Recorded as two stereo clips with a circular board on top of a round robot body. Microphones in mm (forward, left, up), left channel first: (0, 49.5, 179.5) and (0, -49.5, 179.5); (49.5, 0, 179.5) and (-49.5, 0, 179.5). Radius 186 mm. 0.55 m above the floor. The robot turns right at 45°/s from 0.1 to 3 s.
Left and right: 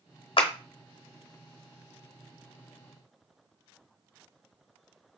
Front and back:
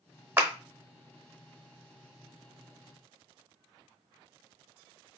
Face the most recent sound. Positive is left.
turn(degrees=-130)